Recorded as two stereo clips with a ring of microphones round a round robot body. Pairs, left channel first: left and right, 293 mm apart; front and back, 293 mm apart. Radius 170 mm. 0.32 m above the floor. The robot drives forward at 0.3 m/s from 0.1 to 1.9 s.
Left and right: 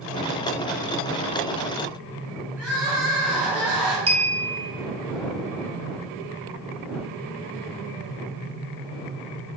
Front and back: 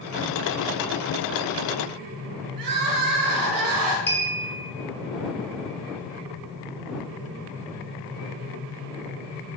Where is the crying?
175° right, 0.5 m.